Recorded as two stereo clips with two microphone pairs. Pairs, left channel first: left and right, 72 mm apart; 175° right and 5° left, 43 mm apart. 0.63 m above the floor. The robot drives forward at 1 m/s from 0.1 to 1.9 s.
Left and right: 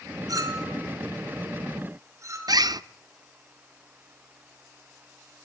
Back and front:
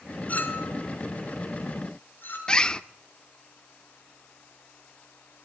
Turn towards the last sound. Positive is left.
turn(degrees=-105)